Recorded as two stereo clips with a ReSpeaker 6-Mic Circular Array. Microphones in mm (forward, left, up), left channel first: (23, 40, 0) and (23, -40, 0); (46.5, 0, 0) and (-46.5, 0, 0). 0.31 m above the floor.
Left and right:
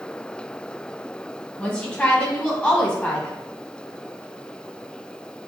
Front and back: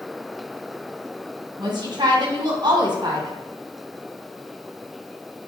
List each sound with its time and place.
1.6 s a woman speaking: 155° left, 1.7 m